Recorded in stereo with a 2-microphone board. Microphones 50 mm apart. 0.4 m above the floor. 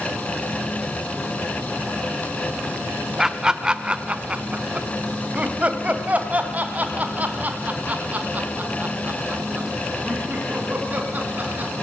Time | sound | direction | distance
3.2 | laughter | 10° right (ahead or behind) | 0.9 m